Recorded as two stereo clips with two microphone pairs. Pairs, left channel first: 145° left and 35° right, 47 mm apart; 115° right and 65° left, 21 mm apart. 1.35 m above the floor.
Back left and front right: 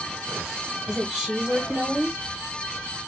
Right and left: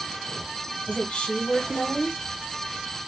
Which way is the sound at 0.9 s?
115° right.